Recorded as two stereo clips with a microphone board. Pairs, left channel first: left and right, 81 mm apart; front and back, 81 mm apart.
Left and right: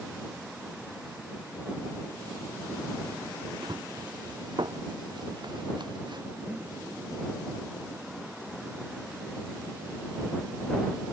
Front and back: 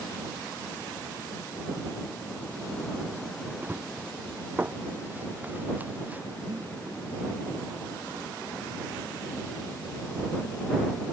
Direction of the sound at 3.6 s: 115° right.